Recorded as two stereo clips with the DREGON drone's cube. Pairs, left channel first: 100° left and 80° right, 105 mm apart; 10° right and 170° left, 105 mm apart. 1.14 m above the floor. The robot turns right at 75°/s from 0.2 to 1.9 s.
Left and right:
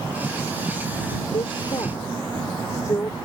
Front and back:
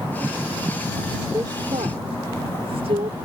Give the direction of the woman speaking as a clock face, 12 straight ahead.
8 o'clock.